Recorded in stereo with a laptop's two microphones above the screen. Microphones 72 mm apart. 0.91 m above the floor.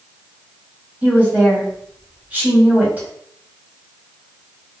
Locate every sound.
1.0 s a woman speaking: 25° right (ahead or behind), 2.5 m